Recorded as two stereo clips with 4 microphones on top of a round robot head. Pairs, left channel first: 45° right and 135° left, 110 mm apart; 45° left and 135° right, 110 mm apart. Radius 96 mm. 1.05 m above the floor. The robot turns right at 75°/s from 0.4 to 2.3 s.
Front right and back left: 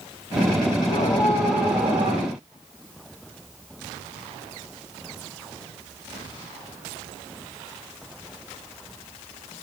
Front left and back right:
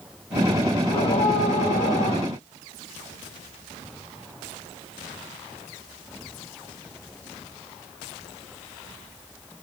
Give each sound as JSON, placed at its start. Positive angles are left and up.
{"t": 0.9, "sound": "a scream", "azimuth_deg": -5, "distance_m": 8.0}